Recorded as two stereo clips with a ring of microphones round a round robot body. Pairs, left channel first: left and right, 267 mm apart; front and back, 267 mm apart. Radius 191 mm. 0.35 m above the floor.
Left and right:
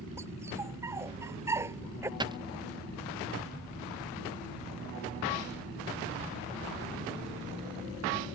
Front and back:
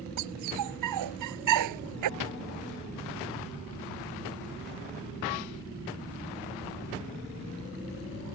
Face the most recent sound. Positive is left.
turn(degrees=-15)